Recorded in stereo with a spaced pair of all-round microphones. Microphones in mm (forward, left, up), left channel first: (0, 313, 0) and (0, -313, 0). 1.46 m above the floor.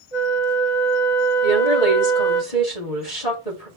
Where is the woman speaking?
75° left (ahead or behind), 4 m.